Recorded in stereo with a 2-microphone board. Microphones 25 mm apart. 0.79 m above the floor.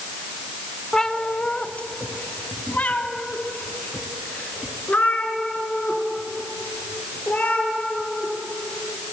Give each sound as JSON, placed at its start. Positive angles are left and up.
{"t": 0.9, "sound": "a cat meowing", "side_deg": 20, "distance_m": 0.7}